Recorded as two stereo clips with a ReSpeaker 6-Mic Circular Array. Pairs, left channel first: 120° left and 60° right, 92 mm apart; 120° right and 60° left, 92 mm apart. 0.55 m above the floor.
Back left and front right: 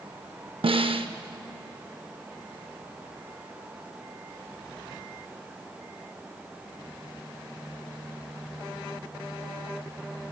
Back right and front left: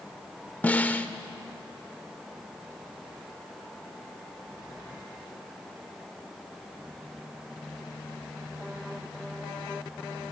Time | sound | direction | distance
0.6 | a snare drum | 45° right | 0.5 m